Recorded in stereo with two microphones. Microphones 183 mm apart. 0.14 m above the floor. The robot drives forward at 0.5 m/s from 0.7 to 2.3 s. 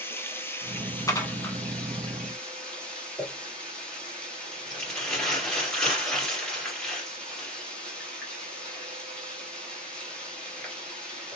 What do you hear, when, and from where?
0.0 s running water: 15° left (ahead or behind), 0.8 m; by 11.4 s 5° left (ahead or behind), 1.6 m
1.1 s dishes clattering: 20° left (ahead or behind), 0.7 m; by 1.6 s 15° left (ahead or behind), 0.8 m
3.2 s crumpling: 5° left (ahead or behind), 2.5 m